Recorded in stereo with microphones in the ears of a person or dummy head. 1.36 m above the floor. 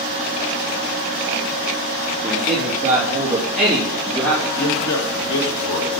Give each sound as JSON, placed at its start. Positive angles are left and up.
{"t": 2.2, "sound": "a man speaking", "side_deg": -20, "distance_m": 2.5}
{"t": 4.5, "sound": "a man speaking", "side_deg": 65, "distance_m": 2.5}